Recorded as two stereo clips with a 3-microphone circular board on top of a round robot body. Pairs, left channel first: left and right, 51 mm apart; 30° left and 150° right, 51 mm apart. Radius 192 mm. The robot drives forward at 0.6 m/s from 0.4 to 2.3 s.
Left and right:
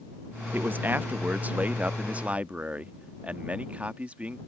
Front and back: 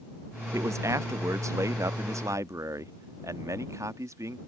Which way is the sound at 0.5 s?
140° right.